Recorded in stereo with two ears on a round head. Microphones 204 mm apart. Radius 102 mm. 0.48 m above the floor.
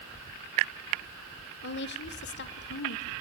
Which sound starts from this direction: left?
A woman speaking, at 1.6 s.